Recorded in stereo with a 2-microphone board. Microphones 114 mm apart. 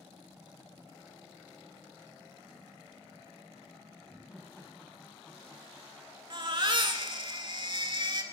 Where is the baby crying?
45° right (ahead or behind), 1.0 m.